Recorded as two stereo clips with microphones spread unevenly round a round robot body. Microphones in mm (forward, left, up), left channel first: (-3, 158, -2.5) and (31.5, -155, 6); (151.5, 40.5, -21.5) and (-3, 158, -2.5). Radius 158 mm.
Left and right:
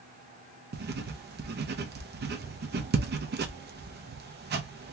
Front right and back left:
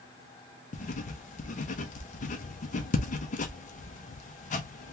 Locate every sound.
0.7 s writing: 40° right, 0.6 m